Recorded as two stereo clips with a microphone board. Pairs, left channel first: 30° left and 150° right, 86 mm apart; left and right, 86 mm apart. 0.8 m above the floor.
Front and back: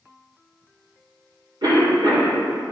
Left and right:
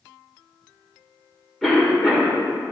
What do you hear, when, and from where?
1.6 s a cough: straight behind, 2.5 m